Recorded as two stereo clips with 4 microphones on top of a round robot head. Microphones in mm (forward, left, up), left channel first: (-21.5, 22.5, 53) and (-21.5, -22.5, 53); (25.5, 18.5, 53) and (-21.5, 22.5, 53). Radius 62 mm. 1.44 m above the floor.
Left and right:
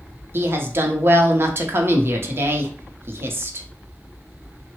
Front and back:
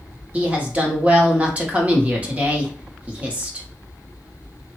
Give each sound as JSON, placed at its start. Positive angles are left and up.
{"t": 0.3, "sound": "a woman speaking", "azimuth_deg": -120, "distance_m": 0.8}